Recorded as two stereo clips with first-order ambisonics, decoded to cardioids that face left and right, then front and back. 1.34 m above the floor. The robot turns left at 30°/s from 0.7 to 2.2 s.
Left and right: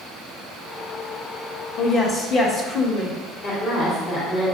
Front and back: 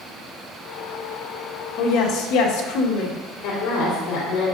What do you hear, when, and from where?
1.8 s a woman speaking: 35° left, 1.9 m; by 3.2 s 25° left, 1.9 m
3.4 s a woman speaking: 40° left, 3.5 m